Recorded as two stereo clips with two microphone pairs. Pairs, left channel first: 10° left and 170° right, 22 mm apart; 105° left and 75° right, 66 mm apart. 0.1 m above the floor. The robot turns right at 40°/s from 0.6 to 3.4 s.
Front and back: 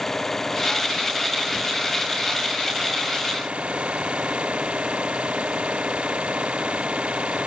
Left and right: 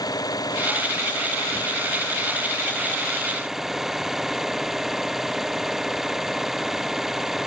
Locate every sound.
0.0 s an engine running: 85° left; by 7.5 s 160° right